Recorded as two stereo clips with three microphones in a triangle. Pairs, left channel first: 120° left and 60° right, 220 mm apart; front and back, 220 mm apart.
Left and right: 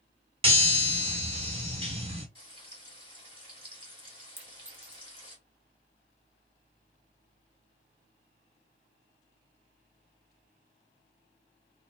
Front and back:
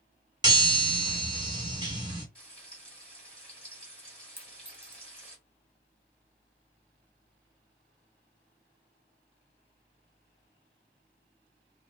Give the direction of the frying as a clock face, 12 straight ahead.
3 o'clock.